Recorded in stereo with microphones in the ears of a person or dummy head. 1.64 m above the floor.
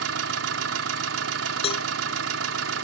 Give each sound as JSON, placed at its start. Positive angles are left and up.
{"t": 0.0, "sound": "an engine running", "side_deg": -75}
{"t": 1.6, "sound": "a cowbell", "side_deg": 40}